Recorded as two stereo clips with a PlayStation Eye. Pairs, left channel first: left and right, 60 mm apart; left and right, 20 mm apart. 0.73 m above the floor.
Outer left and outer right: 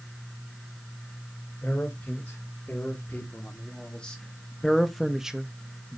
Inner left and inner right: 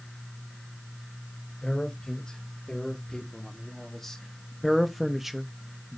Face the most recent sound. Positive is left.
turn(degrees=-20)  # may be behind; listen again after turning